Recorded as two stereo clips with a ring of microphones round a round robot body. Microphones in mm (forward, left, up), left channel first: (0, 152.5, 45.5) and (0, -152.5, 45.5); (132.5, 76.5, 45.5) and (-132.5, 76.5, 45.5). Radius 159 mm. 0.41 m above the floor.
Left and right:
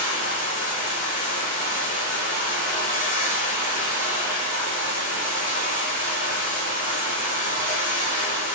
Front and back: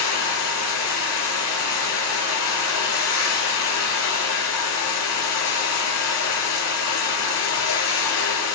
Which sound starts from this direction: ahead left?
Running water, at 0.0 s.